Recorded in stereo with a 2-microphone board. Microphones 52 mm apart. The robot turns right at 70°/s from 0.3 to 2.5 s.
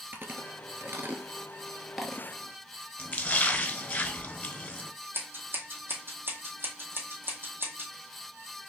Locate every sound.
0.1 s chewing: 45° right (ahead or behind), 0.9 m; by 2.3 s 15° left (ahead or behind), 0.9 m
3.0 s a splash: 35° left (ahead or behind), 1.0 m
5.1 s scissors: 45° right (ahead or behind), 2 m